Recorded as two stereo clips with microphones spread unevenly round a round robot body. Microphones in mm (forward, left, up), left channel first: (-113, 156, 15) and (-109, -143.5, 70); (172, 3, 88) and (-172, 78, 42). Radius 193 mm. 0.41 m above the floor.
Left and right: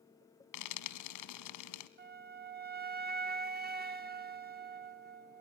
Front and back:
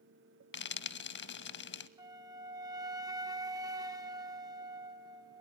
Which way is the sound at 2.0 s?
140° right.